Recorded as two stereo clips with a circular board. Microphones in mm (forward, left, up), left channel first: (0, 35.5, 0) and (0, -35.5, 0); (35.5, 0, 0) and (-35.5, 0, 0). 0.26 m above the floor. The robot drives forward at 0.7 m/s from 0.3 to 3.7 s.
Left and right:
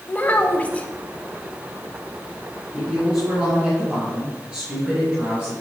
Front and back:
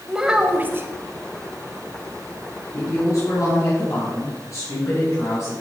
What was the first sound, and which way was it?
A child speaking, 115° left.